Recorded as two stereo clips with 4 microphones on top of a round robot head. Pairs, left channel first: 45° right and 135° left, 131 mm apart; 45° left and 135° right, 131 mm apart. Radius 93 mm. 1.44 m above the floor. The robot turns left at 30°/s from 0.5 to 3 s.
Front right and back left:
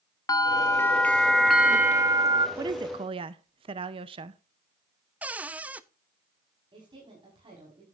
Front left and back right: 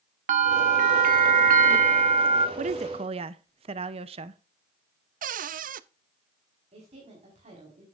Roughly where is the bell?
Right.